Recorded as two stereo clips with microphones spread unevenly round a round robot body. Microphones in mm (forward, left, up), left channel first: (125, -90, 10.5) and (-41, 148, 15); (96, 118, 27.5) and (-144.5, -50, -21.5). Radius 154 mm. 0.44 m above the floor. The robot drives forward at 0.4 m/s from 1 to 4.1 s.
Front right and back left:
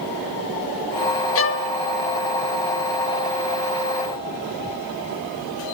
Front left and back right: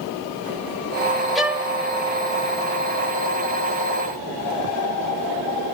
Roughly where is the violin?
Ahead right.